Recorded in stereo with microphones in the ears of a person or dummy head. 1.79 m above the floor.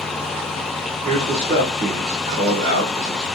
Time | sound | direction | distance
1.1 | a man speaking | 45° right (ahead or behind) | 1.4 m